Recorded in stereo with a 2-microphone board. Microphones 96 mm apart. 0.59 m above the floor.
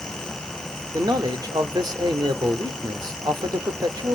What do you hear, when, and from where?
0.9 s a man speaking: 45° right (ahead or behind), 1.3 m